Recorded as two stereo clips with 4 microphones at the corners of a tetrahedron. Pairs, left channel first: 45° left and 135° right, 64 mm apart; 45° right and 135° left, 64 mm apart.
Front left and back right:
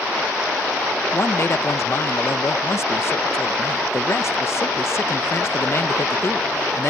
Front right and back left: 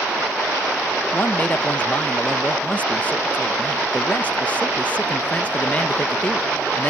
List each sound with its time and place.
1.1 s a man speaking: 15° left